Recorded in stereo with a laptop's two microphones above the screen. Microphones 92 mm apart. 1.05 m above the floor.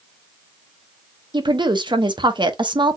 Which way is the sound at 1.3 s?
55° right (ahead or behind).